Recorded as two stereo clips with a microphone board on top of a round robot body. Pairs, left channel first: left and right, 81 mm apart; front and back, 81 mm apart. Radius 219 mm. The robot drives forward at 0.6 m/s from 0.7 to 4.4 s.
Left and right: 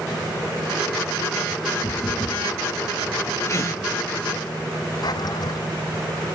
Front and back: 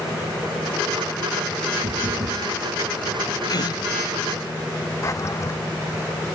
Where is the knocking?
155° left.